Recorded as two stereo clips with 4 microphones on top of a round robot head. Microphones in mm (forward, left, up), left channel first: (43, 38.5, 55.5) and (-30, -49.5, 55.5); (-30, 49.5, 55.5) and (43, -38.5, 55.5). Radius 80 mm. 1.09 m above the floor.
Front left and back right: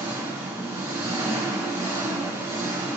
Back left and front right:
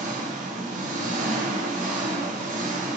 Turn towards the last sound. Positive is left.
turn(degrees=-60)